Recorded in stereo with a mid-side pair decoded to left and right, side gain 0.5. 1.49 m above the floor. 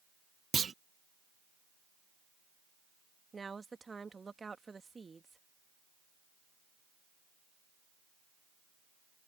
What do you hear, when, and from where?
0.5 s a clunk: 35° right
3.3 s a woman speaking: 25° right